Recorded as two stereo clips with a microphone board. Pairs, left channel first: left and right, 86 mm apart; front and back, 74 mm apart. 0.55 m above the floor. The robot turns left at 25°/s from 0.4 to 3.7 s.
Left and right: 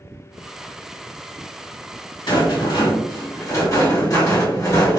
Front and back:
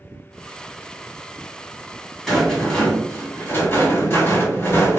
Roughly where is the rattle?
Left.